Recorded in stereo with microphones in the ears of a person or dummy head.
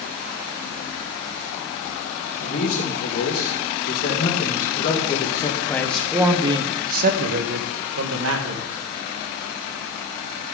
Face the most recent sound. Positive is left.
turn(degrees=-80)